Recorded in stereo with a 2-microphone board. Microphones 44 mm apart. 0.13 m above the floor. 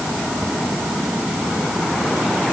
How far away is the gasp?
I don't hear a gasp.